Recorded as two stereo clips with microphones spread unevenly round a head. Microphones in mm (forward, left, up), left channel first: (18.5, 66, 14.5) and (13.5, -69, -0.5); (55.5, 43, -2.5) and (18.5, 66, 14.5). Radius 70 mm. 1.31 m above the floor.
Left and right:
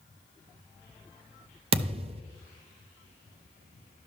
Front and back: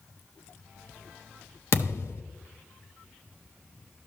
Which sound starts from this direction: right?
A thud, at 1.7 s.